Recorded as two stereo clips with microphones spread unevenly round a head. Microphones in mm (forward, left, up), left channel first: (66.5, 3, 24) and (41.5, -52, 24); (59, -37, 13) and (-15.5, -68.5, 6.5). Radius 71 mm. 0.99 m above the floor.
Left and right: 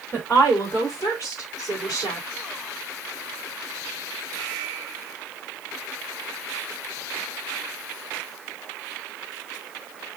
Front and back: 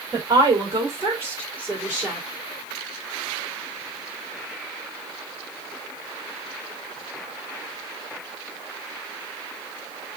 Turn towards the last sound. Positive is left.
turn(degrees=115)